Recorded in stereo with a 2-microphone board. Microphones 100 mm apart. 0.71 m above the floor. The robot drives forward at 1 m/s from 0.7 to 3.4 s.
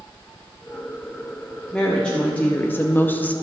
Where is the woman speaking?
10° left (ahead or behind), 1.3 m; by 3.3 s 15° left (ahead or behind), 0.7 m.